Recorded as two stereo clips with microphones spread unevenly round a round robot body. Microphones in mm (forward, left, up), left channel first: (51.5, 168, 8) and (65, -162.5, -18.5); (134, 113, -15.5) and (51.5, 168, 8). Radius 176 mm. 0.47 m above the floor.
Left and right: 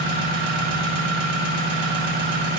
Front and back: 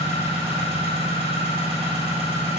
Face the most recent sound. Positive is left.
turn(degrees=-145)